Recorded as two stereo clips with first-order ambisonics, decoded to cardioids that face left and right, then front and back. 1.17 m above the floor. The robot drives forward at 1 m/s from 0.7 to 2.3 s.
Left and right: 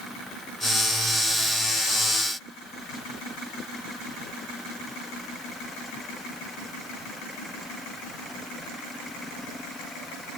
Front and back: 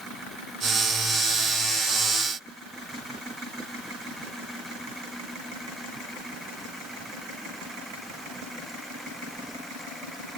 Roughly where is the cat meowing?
No cat meowing in this recording.